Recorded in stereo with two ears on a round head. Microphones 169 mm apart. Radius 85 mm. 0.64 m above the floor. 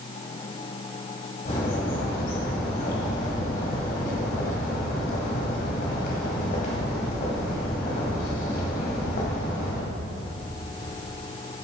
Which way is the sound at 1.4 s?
50° left (ahead or behind).